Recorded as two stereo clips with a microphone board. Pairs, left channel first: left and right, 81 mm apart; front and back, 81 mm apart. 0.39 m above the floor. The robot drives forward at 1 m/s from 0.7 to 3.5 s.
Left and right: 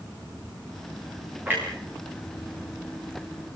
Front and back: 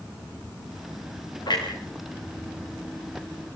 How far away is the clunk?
About 8.5 m.